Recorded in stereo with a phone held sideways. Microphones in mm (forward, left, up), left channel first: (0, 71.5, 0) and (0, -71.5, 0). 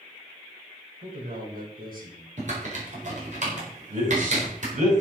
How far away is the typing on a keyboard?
About 4.5 m.